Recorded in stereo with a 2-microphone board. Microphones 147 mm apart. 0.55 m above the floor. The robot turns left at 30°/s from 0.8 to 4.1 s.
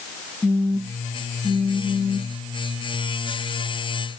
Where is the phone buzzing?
155° left, 0.6 m; by 2.4 s 110° left, 0.6 m.